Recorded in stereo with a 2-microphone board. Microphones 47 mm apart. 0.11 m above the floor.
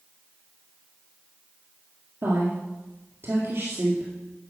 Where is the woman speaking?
55° right (ahead or behind), 2 m.